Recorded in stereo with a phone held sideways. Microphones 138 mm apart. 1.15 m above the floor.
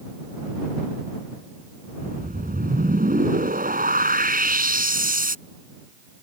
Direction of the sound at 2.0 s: 80° right.